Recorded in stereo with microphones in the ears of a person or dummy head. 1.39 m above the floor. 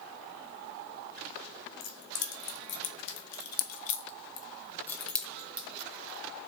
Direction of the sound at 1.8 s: 75° left (ahead or behind).